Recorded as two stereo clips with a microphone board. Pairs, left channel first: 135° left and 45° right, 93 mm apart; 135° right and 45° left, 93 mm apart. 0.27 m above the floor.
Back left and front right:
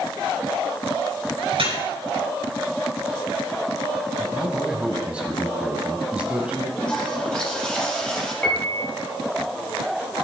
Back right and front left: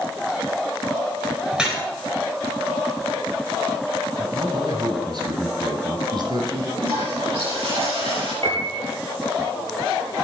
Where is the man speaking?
30° left, 2 m.